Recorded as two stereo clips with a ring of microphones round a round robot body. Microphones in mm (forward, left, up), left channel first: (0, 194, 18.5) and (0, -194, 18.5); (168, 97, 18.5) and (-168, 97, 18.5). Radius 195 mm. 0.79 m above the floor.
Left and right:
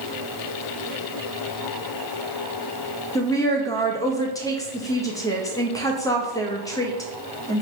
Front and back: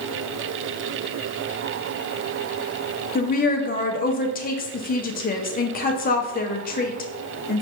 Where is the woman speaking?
20° left, 0.6 m.